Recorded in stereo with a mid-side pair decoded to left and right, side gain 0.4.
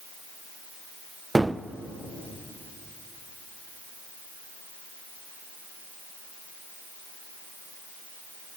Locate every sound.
1.4 s a gunshot: 15° right, 0.7 m